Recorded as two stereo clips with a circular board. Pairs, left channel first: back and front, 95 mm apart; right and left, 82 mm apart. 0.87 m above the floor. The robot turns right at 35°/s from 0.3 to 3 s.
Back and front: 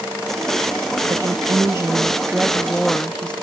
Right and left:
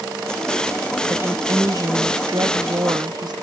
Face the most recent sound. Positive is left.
turn(degrees=100)